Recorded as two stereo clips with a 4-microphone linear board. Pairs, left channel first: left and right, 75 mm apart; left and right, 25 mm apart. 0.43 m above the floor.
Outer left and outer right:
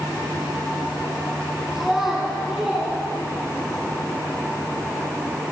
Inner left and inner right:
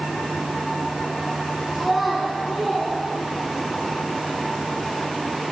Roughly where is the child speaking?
Centre.